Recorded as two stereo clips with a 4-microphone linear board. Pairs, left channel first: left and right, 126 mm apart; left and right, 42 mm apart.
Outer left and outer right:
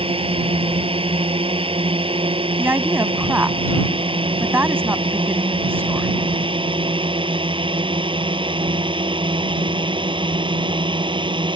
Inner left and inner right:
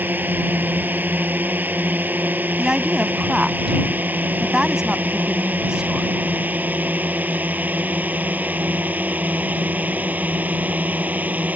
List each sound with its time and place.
0.0 s a drone: 45° right (ahead or behind); by 11.6 s 40° right (ahead or behind)
2.6 s a woman speaking: 20° right (ahead or behind)